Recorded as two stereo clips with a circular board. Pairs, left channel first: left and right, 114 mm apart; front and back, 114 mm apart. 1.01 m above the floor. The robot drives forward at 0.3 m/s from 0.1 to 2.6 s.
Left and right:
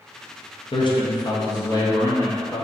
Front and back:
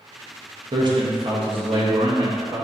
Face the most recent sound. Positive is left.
turn(degrees=150)